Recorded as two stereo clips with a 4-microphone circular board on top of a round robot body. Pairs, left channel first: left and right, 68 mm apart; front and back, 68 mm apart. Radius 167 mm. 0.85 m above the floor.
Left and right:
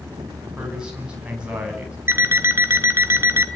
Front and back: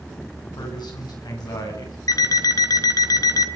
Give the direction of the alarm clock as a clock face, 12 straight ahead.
1 o'clock.